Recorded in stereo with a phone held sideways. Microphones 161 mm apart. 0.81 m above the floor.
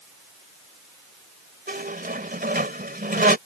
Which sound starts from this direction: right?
A squeak, at 1.7 s.